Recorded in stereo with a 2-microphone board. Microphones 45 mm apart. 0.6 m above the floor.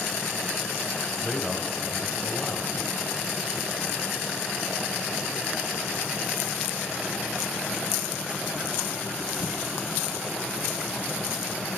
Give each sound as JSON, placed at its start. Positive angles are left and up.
{"t": 1.2, "sound": "a man speaking", "side_deg": 25, "distance_m": 3.0}